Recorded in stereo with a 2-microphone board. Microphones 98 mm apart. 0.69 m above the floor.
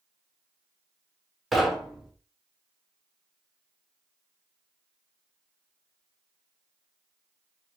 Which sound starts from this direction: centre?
Knocking, at 1.5 s.